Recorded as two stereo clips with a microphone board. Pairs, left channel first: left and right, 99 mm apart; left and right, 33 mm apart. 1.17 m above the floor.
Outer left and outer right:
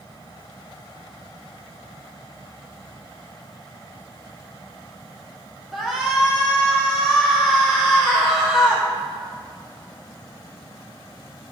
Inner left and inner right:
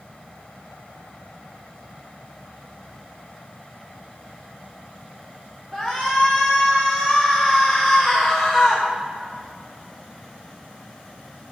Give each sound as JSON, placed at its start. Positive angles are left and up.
{"t": 5.7, "sound": "a shout", "side_deg": -5, "distance_m": 0.8}